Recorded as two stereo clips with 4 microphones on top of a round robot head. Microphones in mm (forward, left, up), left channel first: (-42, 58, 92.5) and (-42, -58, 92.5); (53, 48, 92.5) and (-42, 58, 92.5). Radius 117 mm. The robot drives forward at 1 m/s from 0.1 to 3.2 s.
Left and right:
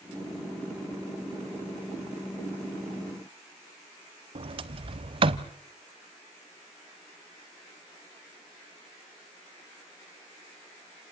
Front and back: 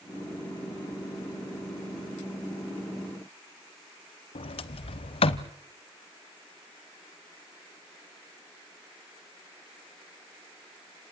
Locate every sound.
4.3 s a sliding door: 40° right, 0.7 m